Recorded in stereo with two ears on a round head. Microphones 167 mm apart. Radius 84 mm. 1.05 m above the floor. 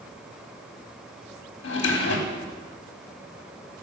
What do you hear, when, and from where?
1.6 s a drawer: 65° left (ahead or behind), 1.2 m